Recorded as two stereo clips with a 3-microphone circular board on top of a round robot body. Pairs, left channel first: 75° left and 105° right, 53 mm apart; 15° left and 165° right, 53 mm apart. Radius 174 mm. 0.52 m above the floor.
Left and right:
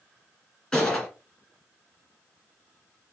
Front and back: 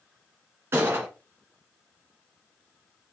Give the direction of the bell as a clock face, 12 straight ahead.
I don't hear a bell.